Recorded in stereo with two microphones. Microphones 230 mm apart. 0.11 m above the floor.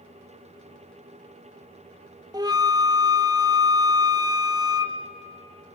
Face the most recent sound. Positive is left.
turn(degrees=-15)  # may be behind; listen again after turning